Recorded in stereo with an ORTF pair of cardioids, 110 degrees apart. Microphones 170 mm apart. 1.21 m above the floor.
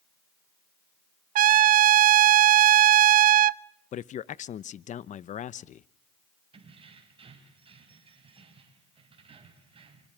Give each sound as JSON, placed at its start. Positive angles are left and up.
{"t": 1.4, "sound": "a trumpet", "azimuth_deg": -55, "distance_m": 0.6}
{"t": 3.9, "sound": "a man speaking", "azimuth_deg": 45, "distance_m": 0.8}
{"t": 6.5, "sound": "keys jangling", "azimuth_deg": -35, "distance_m": 5.5}